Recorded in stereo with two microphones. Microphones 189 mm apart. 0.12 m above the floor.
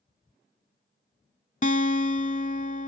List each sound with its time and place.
1.6 s a guitar: 40° left (ahead or behind)